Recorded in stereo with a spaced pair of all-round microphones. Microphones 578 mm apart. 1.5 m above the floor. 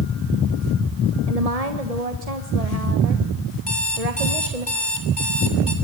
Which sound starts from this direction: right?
A woman speaking, at 1.3 s.